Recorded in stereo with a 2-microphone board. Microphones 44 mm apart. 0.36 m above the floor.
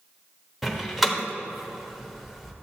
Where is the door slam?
5° right (ahead or behind), 1.0 m.